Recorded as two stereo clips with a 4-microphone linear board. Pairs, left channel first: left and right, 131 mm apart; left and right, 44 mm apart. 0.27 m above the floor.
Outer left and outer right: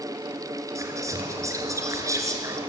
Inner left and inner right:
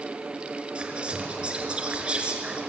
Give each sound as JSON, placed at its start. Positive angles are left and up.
{"t": 0.8, "sound": "whispering", "side_deg": -25, "distance_m": 4.5}